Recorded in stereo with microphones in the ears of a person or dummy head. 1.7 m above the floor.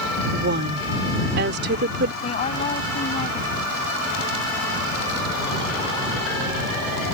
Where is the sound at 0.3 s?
60° right (ahead or behind).